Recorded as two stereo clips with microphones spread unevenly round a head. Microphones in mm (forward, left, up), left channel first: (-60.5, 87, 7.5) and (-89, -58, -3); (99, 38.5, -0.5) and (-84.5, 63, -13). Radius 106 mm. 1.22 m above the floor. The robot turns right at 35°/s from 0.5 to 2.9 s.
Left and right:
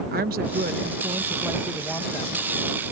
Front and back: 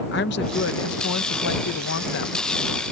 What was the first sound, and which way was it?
A woman speaking, 55° right.